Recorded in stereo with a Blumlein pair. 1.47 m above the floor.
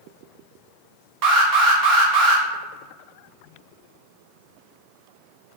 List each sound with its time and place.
1.2 s an alarm: 40° right, 0.6 m